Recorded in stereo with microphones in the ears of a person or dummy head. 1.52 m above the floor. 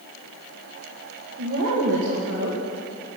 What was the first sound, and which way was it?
A woman speaking, 75° right (ahead or behind).